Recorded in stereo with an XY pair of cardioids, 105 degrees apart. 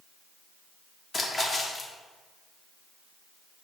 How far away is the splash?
About 0.8 m.